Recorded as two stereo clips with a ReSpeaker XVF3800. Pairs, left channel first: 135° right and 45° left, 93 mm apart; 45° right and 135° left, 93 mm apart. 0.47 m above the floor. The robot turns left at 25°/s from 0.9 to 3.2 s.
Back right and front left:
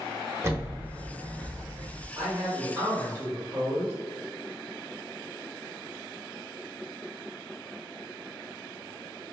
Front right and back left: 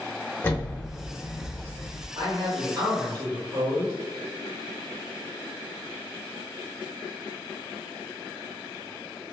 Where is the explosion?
5° left, 0.6 m; by 2.0 s 25° right, 0.6 m.